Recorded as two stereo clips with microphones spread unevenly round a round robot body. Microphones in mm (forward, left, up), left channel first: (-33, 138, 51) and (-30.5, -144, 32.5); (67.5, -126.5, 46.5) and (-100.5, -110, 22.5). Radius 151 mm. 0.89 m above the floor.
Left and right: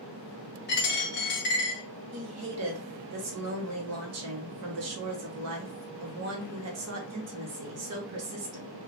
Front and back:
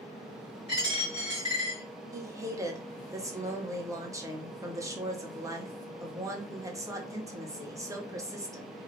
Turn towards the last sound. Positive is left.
turn(degrees=-115)